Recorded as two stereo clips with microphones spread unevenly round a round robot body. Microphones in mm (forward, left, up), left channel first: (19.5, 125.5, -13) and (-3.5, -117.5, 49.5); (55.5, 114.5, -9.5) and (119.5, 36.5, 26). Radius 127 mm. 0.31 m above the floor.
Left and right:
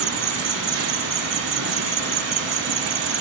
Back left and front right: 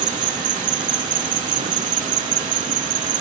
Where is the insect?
65° right.